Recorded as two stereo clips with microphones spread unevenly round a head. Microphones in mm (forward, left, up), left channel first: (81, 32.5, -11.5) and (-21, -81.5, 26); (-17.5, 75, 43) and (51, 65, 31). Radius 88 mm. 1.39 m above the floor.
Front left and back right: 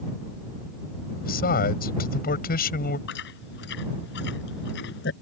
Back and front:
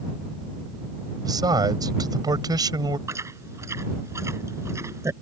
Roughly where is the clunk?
No clunk in this recording.